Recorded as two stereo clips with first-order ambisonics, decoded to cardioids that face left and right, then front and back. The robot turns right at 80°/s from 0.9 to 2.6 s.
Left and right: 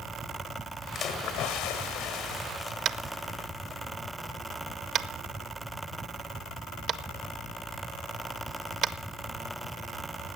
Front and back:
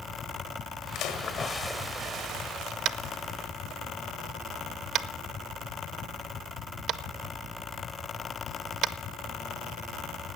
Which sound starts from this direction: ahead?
A splash, at 0.9 s.